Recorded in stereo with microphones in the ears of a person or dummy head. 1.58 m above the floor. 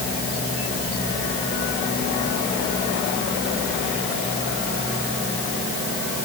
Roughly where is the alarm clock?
No alarm clock in this recording.